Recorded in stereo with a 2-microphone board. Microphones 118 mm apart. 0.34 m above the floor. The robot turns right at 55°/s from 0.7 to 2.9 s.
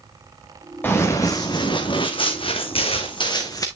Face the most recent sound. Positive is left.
turn(degrees=30)  # may be behind; listen again after turning